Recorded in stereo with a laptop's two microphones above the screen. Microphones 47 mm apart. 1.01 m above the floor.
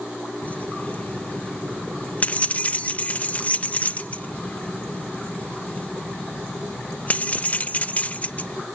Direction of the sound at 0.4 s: 35° left (ahead or behind).